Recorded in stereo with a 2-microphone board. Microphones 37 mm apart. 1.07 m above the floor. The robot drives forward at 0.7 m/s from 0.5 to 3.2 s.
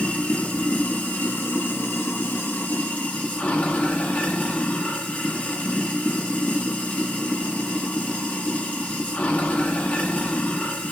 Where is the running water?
45° left (ahead or behind), 1.5 m; by 10.9 s 50° left (ahead or behind), 1.4 m.